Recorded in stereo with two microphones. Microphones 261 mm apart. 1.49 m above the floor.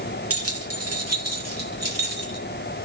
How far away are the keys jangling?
About 2 m.